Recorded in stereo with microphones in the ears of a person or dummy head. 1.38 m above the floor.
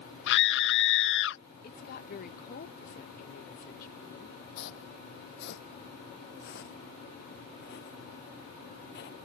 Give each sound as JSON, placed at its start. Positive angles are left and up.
{"t": 0.3, "sound": "a scream", "side_deg": 60}
{"t": 1.6, "sound": "a woman speaking", "side_deg": 45}
{"t": 4.6, "sound": "footsteps", "side_deg": 55}